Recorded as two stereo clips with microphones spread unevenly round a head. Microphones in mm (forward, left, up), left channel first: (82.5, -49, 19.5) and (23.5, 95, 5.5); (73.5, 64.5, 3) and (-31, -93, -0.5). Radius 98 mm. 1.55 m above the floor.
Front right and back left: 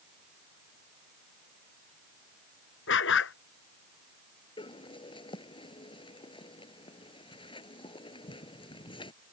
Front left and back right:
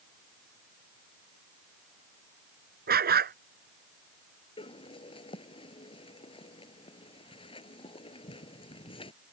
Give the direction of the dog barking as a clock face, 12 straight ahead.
3 o'clock.